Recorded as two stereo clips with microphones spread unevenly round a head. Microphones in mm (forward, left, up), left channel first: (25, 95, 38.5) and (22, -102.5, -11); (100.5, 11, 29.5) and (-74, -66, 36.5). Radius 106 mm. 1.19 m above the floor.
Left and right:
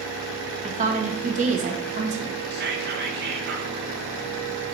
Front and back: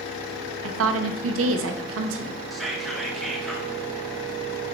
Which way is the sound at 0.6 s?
145° right.